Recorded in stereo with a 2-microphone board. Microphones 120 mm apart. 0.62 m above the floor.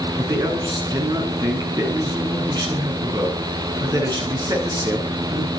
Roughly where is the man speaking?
Right.